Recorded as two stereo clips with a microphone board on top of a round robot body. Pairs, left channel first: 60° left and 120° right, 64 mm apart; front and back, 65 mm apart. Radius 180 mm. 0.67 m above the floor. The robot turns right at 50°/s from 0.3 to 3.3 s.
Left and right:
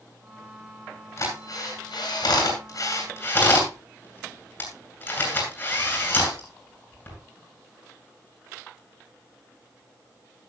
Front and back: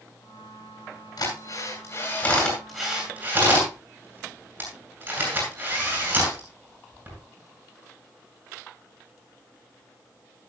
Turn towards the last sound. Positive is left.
turn(degrees=115)